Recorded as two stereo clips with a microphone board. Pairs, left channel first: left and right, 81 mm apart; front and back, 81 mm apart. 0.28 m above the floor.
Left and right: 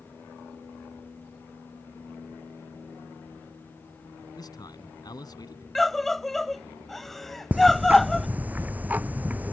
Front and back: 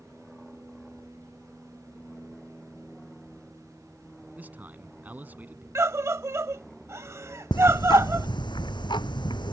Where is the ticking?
20° right.